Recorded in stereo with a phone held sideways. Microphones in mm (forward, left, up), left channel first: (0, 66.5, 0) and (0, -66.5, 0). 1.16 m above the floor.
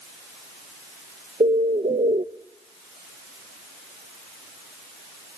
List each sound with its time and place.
1.4 s a bird: 65° right (ahead or behind), 0.7 m